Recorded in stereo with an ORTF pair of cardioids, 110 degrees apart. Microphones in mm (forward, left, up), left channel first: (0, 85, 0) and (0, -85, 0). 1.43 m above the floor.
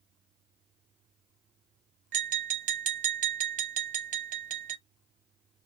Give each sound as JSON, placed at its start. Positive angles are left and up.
{"t": 2.1, "sound": "tapping", "azimuth_deg": -50, "distance_m": 0.9}